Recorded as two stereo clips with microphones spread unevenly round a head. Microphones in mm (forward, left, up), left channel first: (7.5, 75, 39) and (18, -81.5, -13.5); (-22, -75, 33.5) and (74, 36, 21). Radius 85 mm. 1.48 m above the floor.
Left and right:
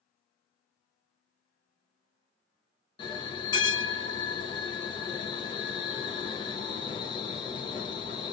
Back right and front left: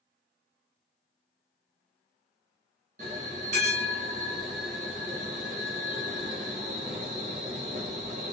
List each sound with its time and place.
3.0 s a bell: 85° left, 0.6 m